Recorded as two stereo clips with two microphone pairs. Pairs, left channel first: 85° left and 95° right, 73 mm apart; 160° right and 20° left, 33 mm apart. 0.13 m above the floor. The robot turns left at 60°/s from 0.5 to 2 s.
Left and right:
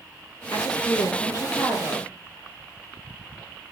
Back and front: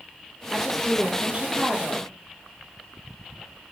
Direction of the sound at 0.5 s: 110° left.